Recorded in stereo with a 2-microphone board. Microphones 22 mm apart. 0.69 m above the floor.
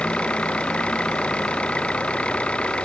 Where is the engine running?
55° left (ahead or behind).